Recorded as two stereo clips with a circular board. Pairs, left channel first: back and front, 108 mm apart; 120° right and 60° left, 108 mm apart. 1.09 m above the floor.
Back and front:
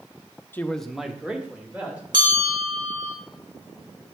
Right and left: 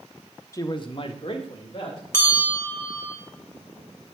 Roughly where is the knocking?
I don't hear knocking.